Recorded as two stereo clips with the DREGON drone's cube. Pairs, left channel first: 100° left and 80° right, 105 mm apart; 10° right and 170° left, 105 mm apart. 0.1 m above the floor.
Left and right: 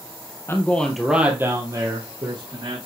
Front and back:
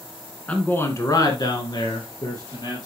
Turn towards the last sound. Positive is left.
turn(degrees=-50)